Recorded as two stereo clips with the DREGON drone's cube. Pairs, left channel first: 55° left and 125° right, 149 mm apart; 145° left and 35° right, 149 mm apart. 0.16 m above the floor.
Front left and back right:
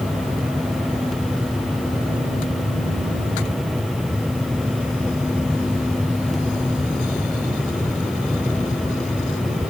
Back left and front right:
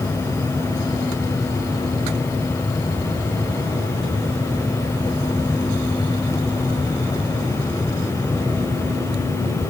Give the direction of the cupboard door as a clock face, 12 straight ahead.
I don't hear a cupboard door.